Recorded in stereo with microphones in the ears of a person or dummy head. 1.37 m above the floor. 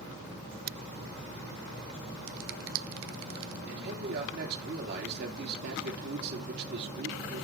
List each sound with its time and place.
2.3 s a finger snap: 80° right, 0.7 m
3.7 s a man speaking: 55° right (ahead or behind), 2.5 m